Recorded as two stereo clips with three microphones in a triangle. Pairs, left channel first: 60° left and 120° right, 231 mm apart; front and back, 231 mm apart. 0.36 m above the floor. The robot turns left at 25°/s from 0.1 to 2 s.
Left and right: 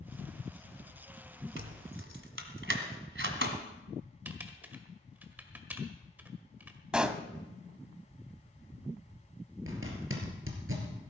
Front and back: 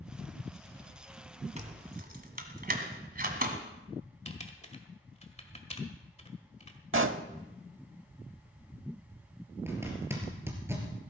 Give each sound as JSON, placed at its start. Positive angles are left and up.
{"t": 1.6, "sound": "keys jangling", "azimuth_deg": -125, "distance_m": 1.6}
{"t": 4.2, "sound": "typing on a keyboard", "azimuth_deg": -40, "distance_m": 1.6}
{"t": 6.9, "sound": "a pop", "azimuth_deg": 155, "distance_m": 0.7}
{"t": 9.7, "sound": "a zipper", "azimuth_deg": -100, "distance_m": 3.0}